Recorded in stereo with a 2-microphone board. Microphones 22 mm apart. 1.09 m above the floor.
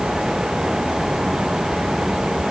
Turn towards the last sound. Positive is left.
No sound to turn to.